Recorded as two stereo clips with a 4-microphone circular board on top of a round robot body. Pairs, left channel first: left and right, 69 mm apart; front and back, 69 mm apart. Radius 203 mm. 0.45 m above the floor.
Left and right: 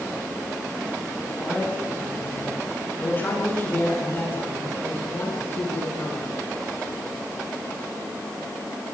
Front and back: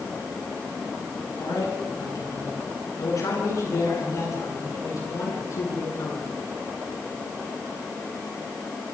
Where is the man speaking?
25° left, 9.5 m; by 6.3 s 35° left, 11.5 m.